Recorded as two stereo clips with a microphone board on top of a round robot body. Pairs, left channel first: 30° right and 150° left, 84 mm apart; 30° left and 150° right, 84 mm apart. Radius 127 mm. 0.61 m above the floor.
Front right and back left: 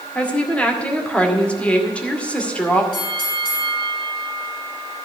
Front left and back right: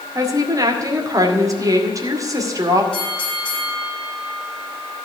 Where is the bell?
50° right, 6.5 m.